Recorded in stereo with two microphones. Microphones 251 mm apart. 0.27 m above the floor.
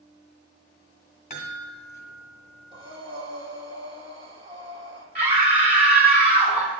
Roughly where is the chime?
Left.